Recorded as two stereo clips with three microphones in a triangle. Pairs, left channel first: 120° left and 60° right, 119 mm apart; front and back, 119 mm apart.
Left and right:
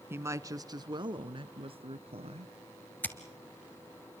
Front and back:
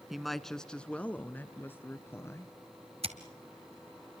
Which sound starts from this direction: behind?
Scissors, at 3.0 s.